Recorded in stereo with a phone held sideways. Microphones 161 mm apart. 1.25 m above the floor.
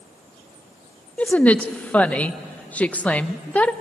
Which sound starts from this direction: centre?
A woman speaking, at 1.2 s.